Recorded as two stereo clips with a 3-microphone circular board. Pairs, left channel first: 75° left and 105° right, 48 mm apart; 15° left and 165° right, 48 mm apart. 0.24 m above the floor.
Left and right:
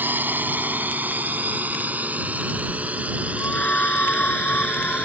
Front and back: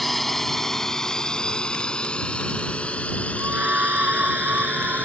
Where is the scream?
135° left.